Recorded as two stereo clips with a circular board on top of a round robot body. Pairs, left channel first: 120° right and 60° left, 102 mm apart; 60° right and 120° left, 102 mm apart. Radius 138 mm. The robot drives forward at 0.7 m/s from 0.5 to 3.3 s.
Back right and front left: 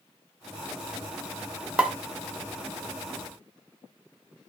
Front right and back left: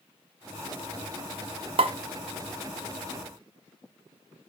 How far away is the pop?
About 1.1 m.